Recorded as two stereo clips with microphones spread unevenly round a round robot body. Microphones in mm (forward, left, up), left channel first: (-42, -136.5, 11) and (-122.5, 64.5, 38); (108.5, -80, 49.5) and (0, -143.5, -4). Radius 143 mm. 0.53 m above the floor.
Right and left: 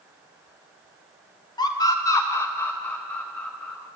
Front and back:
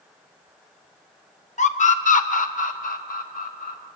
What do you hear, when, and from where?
1.6 s a scream: 5° right, 2 m; by 3.8 s 15° left, 3.5 m